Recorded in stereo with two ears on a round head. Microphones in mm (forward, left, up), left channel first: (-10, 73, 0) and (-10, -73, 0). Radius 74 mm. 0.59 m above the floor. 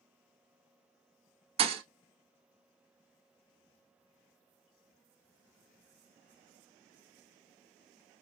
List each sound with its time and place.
1.6 s a thud: 35° right (ahead or behind), 0.8 m